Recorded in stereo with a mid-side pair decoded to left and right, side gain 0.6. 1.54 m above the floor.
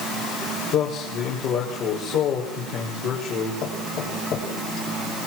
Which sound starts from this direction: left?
A man speaking, at 0.7 s.